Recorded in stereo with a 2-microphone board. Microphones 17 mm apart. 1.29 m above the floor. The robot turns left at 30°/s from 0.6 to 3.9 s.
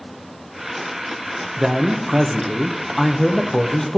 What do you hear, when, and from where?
1.6 s a man speaking: 140° right, 0.7 m; by 4.0 s 150° left, 0.7 m